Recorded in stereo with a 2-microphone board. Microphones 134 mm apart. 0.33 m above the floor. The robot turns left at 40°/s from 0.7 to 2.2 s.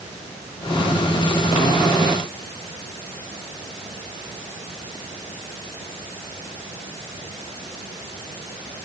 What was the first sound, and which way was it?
Only background noise.